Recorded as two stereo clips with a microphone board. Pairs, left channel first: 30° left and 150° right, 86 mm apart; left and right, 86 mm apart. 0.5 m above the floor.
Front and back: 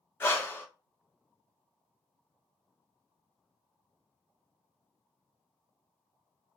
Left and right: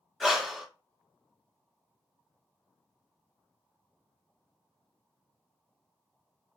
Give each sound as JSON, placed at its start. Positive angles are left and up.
{"t": 0.2, "sound": "breathing", "azimuth_deg": 0, "distance_m": 0.6}